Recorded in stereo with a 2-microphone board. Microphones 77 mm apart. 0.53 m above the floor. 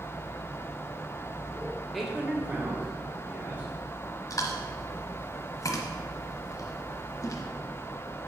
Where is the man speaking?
Centre (ahead or behind), 1.0 m; by 3.7 s 30° right (ahead or behind), 2 m.